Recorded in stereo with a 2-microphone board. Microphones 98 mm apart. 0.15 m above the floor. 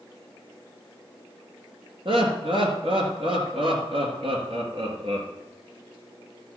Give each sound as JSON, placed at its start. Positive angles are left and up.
{"t": 2.0, "sound": "laughter", "side_deg": -60, "distance_m": 3.0}